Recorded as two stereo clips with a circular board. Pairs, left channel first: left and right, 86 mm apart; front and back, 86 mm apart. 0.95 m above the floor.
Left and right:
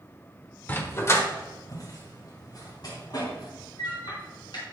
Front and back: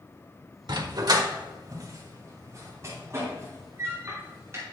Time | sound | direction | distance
0.7 | a dog barking | 155° left | 1.1 m